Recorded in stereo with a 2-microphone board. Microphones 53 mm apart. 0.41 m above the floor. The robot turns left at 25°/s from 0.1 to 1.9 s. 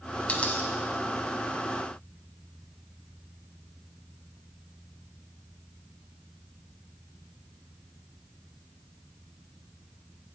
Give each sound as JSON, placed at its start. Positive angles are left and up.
{"t": 0.3, "sound": "a dropped coin", "side_deg": 25, "distance_m": 0.5}